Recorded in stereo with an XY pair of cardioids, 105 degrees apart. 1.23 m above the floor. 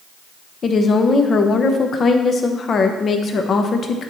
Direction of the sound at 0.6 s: 45° left.